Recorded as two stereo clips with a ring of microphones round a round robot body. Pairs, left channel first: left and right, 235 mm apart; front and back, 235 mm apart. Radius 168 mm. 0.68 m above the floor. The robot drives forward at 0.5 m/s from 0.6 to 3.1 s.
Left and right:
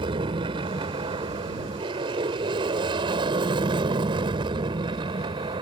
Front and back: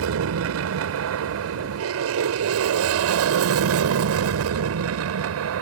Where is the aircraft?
165° right.